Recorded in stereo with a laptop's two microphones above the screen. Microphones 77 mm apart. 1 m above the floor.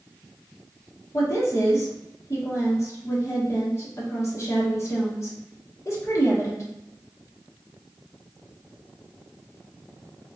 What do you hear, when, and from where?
1.1 s a woman speaking: 40° left (ahead or behind), 1.3 m